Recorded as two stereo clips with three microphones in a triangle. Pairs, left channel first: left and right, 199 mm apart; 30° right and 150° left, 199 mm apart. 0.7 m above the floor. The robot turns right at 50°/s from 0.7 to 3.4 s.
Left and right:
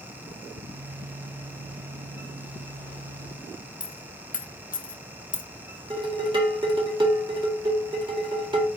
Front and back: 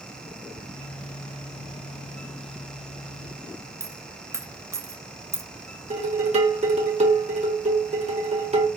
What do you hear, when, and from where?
3.8 s a dropped coin: 80° left, 0.5 m
5.9 s dishes clattering: 155° right, 1.3 m